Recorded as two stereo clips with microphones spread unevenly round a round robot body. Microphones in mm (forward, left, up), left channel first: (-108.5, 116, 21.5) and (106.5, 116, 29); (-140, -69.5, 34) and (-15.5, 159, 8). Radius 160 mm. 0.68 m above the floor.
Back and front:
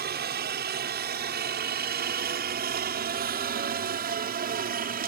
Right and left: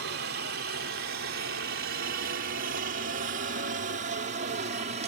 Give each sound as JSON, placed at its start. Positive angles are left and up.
{"t": 0.0, "sound": "a helicopter", "azimuth_deg": 25}